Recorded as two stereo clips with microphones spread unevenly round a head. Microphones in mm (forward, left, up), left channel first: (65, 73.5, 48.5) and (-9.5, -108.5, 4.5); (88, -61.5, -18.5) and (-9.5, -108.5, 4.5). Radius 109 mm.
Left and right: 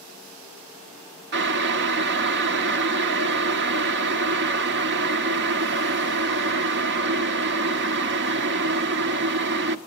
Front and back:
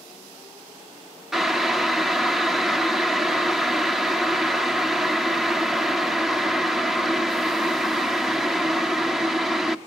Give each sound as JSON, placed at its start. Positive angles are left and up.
{"t": 1.3, "sound": "boiling", "azimuth_deg": -75, "distance_m": 1.0}